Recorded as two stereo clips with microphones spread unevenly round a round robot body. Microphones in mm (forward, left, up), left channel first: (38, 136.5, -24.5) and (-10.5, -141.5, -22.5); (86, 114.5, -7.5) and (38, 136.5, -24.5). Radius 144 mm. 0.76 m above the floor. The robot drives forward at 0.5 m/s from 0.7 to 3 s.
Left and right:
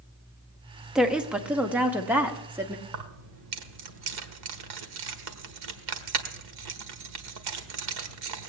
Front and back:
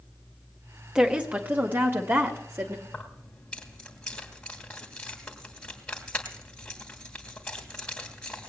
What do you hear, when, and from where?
0.9 s a woman speaking: 175° left, 0.8 m; by 2.8 s straight behind, 1.4 m
2.9 s keys jangling: 100° right, 1.5 m